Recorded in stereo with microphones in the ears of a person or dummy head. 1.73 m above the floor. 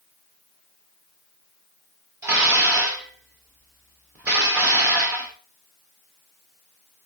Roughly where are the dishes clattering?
Centre.